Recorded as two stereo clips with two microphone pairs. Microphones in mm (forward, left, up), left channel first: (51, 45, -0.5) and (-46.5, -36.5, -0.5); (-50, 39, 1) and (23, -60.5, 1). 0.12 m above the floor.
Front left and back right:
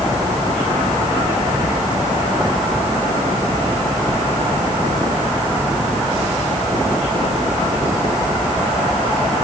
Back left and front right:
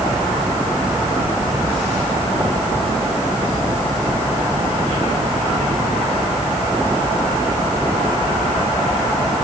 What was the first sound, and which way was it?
Only background noise.